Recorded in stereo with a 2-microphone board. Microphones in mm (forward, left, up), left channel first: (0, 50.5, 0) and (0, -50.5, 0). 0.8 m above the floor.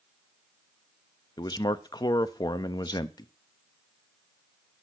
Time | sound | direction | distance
1.4 | a man speaking | 45° left (ahead or behind) | 0.6 m